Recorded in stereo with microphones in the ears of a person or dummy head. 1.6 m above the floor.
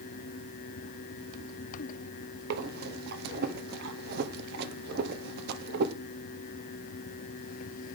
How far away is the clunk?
I don't hear a clunk.